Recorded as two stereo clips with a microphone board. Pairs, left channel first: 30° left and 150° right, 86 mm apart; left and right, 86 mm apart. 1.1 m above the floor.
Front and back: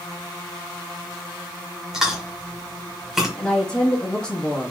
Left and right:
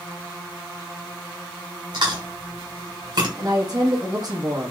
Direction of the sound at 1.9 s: 65° right.